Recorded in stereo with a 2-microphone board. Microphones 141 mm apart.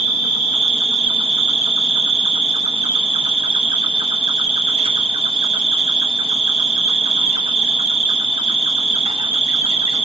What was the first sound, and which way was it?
An insect, 50° right (ahead or behind).